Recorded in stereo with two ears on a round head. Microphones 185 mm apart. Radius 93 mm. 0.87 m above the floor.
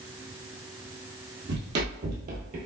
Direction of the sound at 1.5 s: 55° right (ahead or behind).